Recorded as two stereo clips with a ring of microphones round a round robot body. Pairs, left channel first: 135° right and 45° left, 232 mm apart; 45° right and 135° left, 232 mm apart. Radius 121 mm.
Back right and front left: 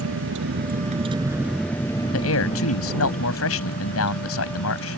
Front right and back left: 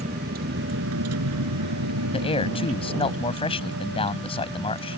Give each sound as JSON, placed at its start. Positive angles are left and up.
{"t": 0.0, "sound": "a vehicle", "azimuth_deg": 75}
{"t": 2.1, "sound": "a man speaking", "azimuth_deg": -110}